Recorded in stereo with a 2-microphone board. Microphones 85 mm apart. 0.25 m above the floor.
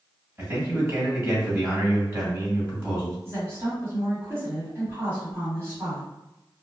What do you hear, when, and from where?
0.4 s a man speaking: 30° right (ahead or behind), 1.8 m
3.2 s a woman speaking: 35° right (ahead or behind), 1.4 m